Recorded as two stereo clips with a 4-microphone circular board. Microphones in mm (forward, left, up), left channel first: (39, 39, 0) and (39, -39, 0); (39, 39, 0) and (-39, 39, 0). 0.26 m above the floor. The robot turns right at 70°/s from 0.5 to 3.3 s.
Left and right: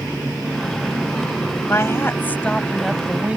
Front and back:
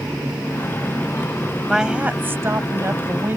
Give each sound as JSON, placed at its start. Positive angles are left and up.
{"t": 1.7, "sound": "a woman speaking", "azimuth_deg": 95}